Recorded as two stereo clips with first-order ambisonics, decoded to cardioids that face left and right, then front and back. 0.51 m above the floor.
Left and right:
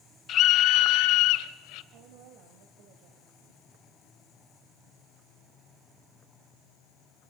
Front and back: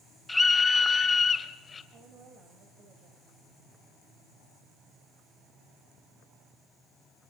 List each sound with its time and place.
0.3 s a scream: 80° left, 0.8 m; by 1.8 s 70° left, 1.8 m
1.9 s a woman speaking: 125° right, 3 m